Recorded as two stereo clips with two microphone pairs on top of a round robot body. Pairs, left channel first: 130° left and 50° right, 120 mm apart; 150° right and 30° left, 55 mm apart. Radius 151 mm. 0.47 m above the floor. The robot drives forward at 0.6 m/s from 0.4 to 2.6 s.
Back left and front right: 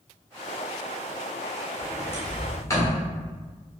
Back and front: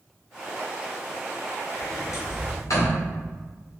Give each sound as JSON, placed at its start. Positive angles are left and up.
{"t": 1.8, "sound": "a sliding door", "azimuth_deg": -160, "distance_m": 1.1}